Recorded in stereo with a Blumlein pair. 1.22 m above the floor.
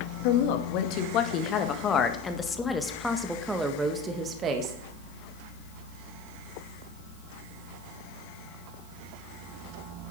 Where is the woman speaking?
50° left, 2.5 m; by 4.8 s 30° right, 1.9 m.